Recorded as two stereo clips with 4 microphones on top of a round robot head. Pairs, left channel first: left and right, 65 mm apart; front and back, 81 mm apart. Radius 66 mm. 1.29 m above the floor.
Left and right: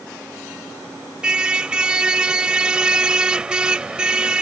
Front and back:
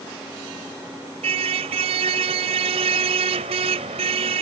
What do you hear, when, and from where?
1.2 s a car horn: 165° right